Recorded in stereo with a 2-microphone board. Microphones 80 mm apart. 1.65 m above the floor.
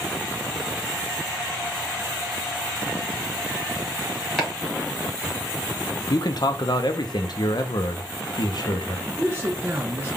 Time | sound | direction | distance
4.4 | chopping | 5° left (ahead or behind) | 1.5 m
6.1 | a man speaking | 60° left (ahead or behind) | 0.6 m
9.1 | a man speaking | 30° right (ahead or behind) | 0.6 m